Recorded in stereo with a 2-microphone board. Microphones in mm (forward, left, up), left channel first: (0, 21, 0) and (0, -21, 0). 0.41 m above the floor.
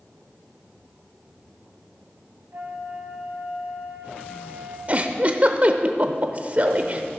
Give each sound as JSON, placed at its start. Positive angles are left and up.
{"t": 2.5, "sound": "a flute", "side_deg": -50, "distance_m": 1.4}
{"t": 4.9, "sound": "a giggle", "side_deg": -35, "distance_m": 0.8}